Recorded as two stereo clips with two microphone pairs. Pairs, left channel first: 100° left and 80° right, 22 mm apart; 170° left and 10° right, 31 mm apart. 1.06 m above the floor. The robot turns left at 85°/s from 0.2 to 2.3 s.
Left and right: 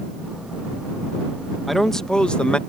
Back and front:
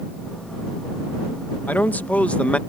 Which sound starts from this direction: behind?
A man speaking, at 1.7 s.